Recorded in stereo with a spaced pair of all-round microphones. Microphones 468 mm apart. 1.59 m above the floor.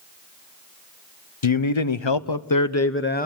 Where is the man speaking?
85° left, 1.1 m; by 3.3 s 15° left (ahead or behind), 1.1 m.